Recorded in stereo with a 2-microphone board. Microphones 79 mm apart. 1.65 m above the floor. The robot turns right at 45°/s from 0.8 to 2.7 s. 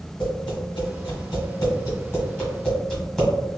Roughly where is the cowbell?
No cowbell in this recording.